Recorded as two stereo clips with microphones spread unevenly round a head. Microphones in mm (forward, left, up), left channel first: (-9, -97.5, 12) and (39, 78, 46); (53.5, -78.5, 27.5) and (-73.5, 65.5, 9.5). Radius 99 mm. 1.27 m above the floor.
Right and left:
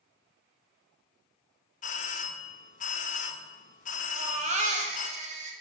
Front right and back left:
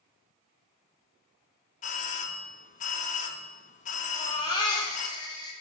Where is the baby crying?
20° left, 0.9 m.